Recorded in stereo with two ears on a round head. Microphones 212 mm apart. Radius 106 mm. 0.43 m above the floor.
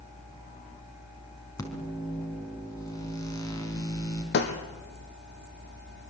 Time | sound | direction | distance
1.6 | a microwave | 15° left (ahead or behind) | 4.5 m
4.3 | breaking glass | 50° left (ahead or behind) | 3 m